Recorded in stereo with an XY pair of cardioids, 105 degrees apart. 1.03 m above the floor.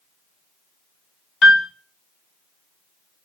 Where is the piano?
60° left, 0.6 m.